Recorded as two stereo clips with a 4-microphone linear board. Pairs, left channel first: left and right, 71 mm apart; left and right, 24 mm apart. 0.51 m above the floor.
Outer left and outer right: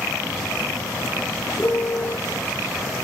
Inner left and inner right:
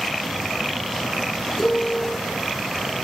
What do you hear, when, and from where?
1.6 s a piano: 25° left (ahead or behind), 0.9 m